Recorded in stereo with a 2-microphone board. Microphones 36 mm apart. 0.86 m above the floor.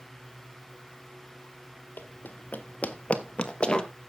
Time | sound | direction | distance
2.0 | running footsteps | 55° left (ahead or behind) | 1.4 m